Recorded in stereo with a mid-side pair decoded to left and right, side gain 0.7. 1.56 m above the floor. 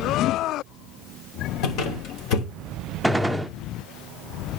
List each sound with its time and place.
1.6 s a squeak: 65° left, 3 m
3.0 s a gunshot: straight ahead, 0.7 m